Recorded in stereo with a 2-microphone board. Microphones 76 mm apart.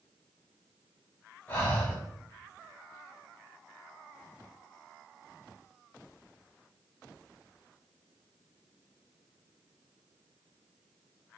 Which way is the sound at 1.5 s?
25° left (ahead or behind).